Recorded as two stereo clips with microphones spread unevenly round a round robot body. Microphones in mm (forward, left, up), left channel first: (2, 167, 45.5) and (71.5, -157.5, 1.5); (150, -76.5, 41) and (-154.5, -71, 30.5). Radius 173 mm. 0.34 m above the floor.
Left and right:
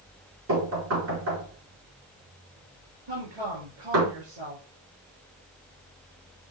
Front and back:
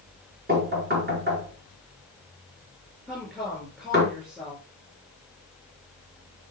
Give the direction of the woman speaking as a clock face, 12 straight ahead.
3 o'clock.